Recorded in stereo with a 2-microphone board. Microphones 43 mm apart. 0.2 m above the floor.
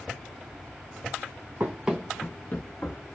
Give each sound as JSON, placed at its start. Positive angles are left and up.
{"t": 1.6, "sound": "running footsteps", "side_deg": -35, "distance_m": 0.6}